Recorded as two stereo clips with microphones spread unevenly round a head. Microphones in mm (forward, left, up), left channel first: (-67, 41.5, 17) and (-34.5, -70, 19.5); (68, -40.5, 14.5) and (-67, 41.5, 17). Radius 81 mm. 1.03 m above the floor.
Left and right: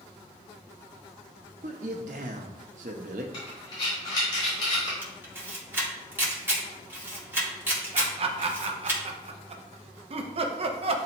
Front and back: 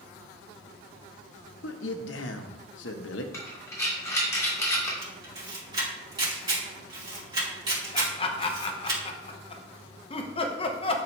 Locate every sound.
1.6 s a man speaking: 35° right, 0.9 m
3.3 s breathing: 45° left, 2.5 m
5.0 s a camera shutter: 145° right, 2.5 m
7.9 s laughter: 75° right, 1.0 m